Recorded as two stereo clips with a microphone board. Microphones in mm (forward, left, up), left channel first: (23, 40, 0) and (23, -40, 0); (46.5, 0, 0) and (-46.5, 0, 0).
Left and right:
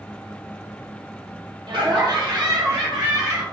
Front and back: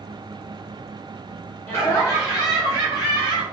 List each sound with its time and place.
1.7 s laughter: 65° right, 1.9 m; by 3.4 s 45° right, 2.5 m